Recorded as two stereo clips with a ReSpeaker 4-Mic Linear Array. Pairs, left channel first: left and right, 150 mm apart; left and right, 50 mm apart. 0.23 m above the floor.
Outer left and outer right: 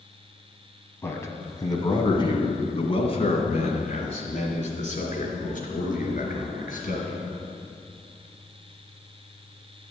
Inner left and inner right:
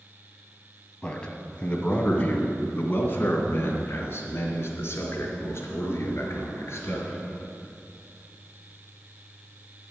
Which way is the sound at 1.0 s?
15° left (ahead or behind).